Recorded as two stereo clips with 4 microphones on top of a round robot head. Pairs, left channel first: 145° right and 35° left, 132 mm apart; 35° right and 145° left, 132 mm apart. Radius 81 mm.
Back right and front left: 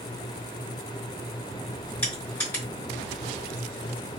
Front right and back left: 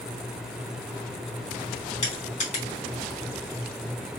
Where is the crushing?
70° right, 3 m.